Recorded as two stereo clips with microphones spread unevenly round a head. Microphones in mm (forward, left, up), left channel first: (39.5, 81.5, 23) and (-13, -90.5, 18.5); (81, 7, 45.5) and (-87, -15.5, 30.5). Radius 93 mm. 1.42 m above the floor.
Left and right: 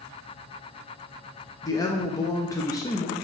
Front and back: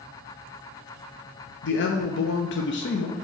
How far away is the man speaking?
About 0.5 m.